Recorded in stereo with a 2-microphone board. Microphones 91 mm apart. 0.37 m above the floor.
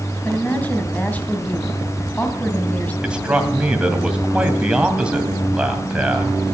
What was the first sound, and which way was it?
A woman speaking, 15° left (ahead or behind).